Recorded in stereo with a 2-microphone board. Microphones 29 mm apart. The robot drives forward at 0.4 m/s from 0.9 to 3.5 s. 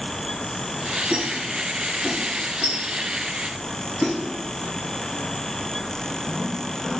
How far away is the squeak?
About 1.5 m.